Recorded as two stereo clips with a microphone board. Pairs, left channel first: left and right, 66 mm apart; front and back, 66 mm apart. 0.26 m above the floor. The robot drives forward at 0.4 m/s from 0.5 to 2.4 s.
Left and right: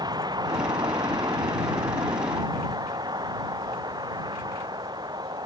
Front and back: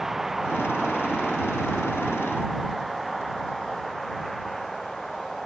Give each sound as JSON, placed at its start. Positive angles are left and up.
{"t": 0.0, "sound": "a vehicle", "azimuth_deg": -95}